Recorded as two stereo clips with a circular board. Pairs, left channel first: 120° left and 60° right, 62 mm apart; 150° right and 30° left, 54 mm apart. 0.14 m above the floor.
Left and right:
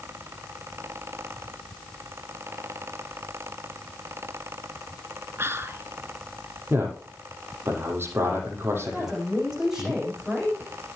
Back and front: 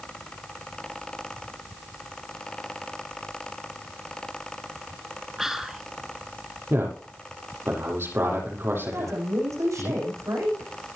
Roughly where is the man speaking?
Ahead.